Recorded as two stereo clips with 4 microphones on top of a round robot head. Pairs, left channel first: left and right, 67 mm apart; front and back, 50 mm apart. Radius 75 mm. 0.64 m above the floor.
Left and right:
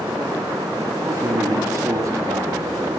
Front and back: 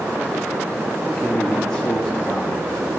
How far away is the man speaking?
About 1.5 m.